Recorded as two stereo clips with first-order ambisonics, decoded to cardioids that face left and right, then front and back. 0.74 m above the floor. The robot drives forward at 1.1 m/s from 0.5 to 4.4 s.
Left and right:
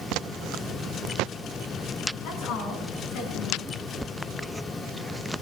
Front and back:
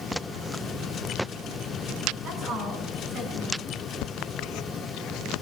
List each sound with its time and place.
2.2 s a woman speaking: 125° left, 6.5 m; by 3.8 s 135° left, 7.5 m